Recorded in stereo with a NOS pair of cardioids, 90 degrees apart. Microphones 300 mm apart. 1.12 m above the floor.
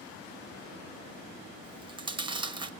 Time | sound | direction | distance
1.6 | chewing | 15° right | 1.2 m